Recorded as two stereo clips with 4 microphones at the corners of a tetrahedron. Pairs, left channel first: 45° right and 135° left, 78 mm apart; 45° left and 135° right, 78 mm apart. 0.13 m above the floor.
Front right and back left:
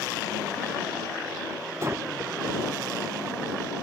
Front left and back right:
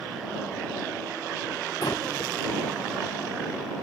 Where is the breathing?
75° left.